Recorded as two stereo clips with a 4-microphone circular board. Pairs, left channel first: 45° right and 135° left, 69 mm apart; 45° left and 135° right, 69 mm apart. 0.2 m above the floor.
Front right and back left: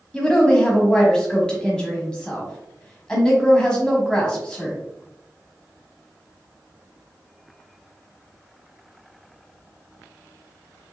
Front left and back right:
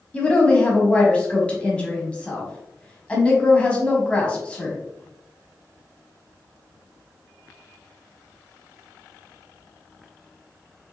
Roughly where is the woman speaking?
Ahead.